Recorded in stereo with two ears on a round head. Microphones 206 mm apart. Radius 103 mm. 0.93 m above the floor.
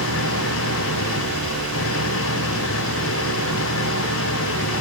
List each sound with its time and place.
0.0 s an engine running: 60° left (ahead or behind)